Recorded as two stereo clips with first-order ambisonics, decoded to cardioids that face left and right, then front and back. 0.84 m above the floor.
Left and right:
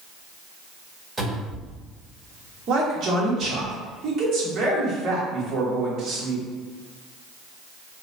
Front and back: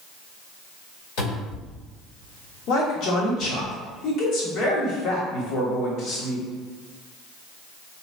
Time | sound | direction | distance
1.2 | a cupboard door | 5° right | 1.7 m
2.7 | a man speaking | 35° right | 1.0 m